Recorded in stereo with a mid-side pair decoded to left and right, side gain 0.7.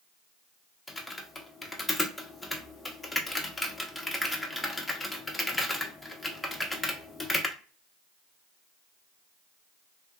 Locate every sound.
0.9 s typing on a keyboard: 15° left, 0.7 m